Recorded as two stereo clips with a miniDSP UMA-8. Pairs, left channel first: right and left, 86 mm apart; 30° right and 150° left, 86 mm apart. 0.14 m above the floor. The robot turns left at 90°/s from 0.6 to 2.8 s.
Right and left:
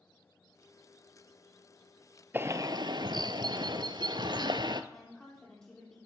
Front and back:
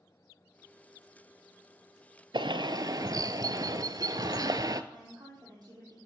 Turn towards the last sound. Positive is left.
turn(degrees=-175)